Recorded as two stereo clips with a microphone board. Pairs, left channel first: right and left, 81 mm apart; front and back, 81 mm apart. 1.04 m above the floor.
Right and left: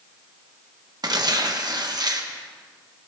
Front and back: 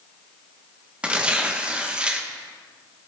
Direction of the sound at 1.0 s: 105° left.